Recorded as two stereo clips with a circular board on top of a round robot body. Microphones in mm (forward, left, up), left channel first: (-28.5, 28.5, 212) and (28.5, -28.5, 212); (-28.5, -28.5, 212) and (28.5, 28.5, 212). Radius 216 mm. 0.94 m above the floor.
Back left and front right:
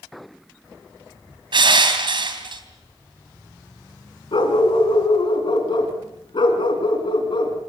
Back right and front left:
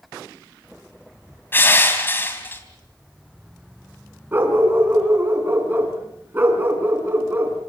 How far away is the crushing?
About 3 m.